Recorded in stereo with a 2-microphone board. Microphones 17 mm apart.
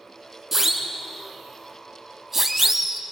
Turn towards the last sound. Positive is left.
turn(degrees=-15)  # may be behind; listen again after turning